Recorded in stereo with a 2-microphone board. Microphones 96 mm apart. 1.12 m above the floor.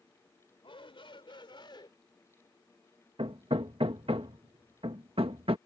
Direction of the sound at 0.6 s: 70° left (ahead or behind).